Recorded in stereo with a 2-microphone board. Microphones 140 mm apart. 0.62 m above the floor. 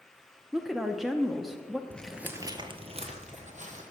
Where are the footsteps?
10° left (ahead or behind), 0.6 m; by 3.8 s 65° right (ahead or behind), 1.5 m.